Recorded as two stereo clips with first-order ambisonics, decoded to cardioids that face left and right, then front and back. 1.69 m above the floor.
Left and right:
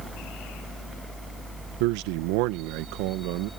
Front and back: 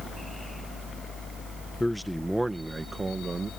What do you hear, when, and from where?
1.8 s a man speaking: 85° right; by 3.5 s 105° right